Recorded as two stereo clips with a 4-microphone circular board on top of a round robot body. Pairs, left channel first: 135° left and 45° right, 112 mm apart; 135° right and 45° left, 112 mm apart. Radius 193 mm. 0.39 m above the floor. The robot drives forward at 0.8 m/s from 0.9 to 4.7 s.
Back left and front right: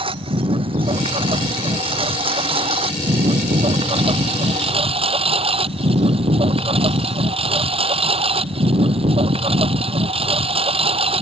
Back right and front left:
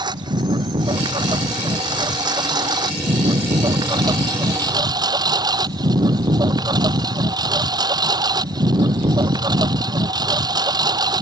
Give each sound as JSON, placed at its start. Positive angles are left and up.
{"t": 0.0, "sound": "a lawn mower", "azimuth_deg": -5}